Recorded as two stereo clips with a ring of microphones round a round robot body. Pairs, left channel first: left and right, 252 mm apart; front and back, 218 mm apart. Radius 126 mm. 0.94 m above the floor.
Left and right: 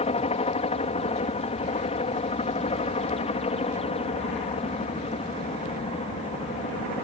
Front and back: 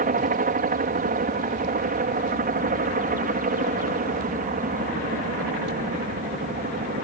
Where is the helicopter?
150° left.